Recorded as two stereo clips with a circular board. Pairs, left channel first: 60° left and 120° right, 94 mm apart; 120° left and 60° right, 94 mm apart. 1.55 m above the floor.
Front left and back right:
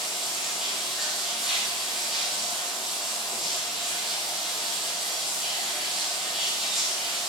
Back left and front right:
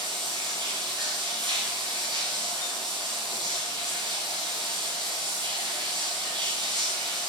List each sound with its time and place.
0.0 s running water: 35° right, 5 m